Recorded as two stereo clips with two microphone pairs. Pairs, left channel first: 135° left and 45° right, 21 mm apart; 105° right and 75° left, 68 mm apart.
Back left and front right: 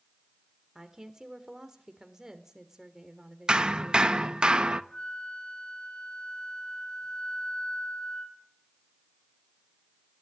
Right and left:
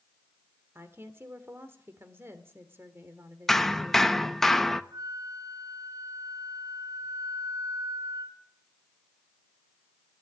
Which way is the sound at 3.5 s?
20° right.